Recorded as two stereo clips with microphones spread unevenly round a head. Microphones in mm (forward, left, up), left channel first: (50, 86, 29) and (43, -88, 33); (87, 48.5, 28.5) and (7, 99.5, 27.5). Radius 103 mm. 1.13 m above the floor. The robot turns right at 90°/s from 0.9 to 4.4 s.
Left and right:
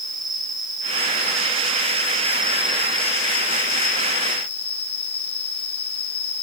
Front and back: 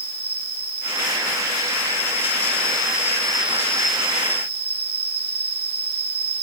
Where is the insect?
165° right, 3 m; by 6.4 s 150° left, 3 m.